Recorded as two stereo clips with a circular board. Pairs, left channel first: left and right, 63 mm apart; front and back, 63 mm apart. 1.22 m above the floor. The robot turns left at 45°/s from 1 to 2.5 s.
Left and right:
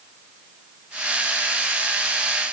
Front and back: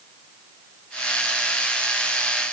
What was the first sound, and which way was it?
Only background noise.